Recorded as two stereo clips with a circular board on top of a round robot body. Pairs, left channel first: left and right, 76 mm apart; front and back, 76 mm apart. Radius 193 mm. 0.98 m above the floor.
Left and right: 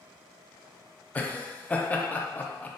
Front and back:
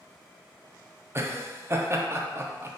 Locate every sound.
1.1 s laughter: 150° left, 0.7 m